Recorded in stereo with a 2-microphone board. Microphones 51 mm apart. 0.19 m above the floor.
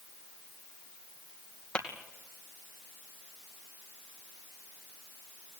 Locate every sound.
1.8 s tapping: 20° left (ahead or behind), 2.5 m